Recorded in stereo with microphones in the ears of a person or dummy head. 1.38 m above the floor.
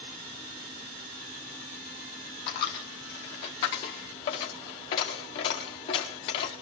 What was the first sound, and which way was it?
A dropped coin, 25° left (ahead or behind).